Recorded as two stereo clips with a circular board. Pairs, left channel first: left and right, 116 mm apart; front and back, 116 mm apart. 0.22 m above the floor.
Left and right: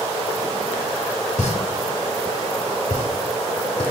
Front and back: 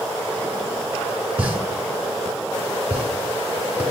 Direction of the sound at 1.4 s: 105° left.